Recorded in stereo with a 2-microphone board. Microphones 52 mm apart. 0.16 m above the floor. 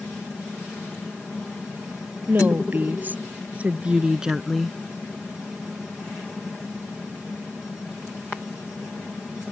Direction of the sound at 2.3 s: 40° right (ahead or behind).